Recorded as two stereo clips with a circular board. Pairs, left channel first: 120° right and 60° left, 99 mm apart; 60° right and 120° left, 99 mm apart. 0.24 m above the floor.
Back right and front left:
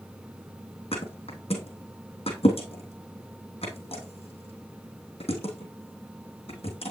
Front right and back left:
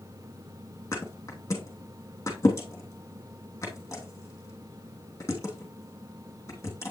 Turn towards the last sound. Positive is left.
turn(degrees=-120)